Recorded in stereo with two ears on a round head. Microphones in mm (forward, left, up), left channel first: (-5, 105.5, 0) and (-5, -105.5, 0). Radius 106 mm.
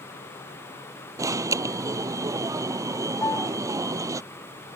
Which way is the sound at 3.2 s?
10° left (ahead or behind).